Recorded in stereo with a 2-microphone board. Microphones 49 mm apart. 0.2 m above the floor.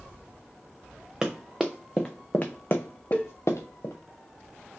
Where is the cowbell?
30° left (ahead or behind), 0.6 m.